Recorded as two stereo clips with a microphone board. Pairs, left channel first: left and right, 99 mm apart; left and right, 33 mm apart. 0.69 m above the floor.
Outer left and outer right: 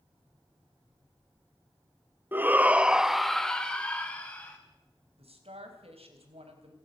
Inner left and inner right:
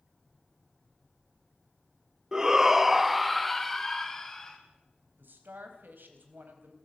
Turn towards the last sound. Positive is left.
turn(degrees=-80)